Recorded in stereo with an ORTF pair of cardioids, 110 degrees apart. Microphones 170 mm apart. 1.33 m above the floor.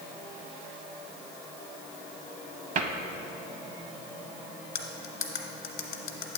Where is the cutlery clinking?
55° left, 1.3 m.